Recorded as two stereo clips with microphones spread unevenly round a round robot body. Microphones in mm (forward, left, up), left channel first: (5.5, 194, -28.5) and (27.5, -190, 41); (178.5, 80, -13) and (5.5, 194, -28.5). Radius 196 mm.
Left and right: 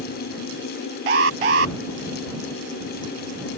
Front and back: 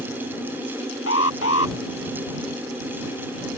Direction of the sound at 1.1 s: 90° right.